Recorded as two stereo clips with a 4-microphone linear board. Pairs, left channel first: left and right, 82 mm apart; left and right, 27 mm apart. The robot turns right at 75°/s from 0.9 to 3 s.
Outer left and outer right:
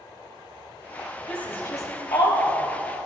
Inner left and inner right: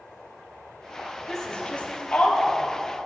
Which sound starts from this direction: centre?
A woman speaking, at 1.3 s.